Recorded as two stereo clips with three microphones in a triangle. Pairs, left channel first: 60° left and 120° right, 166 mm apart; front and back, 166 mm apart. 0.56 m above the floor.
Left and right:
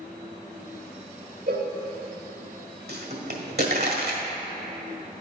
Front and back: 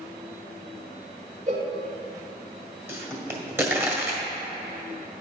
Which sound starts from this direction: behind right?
A cowbell, at 1.5 s.